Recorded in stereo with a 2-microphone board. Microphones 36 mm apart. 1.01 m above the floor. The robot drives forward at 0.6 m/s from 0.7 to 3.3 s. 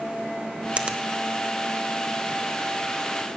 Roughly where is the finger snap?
Right.